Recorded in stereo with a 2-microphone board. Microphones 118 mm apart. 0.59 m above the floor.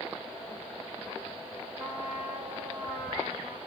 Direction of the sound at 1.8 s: 5° right (ahead or behind).